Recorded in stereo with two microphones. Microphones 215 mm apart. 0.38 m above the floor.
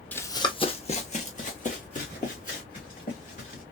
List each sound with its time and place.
0.1 s running footsteps: 10° left (ahead or behind), 0.5 m; by 3.6 s 40° left (ahead or behind), 3 m